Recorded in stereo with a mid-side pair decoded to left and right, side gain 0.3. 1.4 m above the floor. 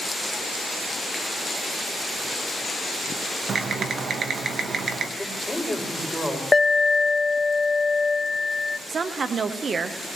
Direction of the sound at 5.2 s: 15° left.